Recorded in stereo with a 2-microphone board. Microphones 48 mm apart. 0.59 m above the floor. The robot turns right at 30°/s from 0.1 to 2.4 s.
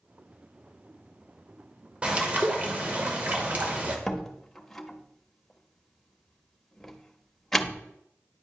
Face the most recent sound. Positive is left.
turn(degrees=5)  # may be behind; listen again after turning